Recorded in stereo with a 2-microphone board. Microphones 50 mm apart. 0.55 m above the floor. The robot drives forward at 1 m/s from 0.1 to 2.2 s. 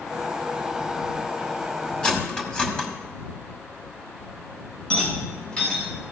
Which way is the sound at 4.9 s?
20° left (ahead or behind).